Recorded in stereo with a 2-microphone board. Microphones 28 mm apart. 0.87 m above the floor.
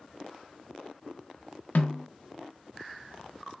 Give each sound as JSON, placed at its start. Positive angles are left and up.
{"t": 1.8, "sound": "a snare drum", "side_deg": 70, "distance_m": 0.5}